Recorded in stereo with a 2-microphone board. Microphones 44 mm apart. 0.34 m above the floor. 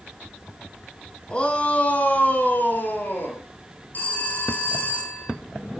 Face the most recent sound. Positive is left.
turn(degrees=50)  # may be behind; listen again after turning